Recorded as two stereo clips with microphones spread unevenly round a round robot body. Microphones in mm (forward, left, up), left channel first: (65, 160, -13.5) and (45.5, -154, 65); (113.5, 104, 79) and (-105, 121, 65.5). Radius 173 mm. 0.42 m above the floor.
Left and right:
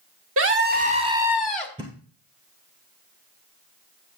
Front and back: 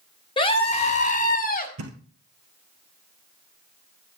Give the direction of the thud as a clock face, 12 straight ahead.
6 o'clock.